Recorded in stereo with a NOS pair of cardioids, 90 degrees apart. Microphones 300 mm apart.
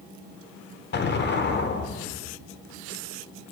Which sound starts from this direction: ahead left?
An explosion, at 0.9 s.